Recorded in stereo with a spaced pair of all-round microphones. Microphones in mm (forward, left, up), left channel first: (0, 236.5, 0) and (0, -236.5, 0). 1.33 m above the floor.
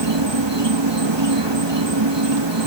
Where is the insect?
65° right (ahead or behind).